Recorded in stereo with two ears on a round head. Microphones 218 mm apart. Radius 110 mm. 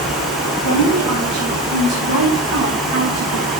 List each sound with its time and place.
0.6 s a woman speaking: 85° right, 6.5 m; by 3.5 s 60° right (ahead or behind), 5.5 m